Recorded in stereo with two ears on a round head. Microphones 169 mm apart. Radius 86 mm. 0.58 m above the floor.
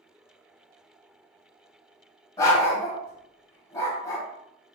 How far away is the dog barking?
About 1.0 m.